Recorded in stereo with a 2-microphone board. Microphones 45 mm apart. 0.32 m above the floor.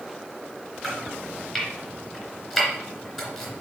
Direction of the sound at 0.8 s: 5° right (ahead or behind).